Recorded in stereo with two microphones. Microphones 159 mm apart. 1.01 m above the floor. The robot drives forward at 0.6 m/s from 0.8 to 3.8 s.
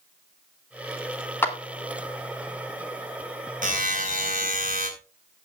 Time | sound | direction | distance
1.4 | a clap | 15° left (ahead or behind) | 2.5 m
3.6 | a buzzer | 55° right (ahead or behind) | 4.5 m